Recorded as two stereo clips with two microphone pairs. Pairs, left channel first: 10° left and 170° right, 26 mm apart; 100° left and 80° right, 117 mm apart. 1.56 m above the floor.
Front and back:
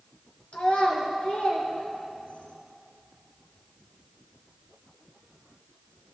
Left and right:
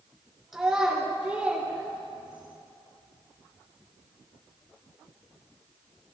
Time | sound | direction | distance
0.5 | a child speaking | 5° left | 3.5 m